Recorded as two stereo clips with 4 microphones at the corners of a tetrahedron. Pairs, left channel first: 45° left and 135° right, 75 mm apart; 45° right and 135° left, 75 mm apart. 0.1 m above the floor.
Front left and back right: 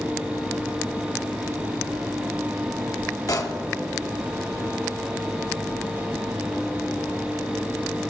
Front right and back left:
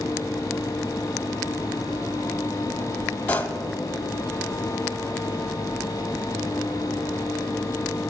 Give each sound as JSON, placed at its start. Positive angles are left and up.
{"t": 3.3, "sound": "a pop", "azimuth_deg": 20, "distance_m": 0.9}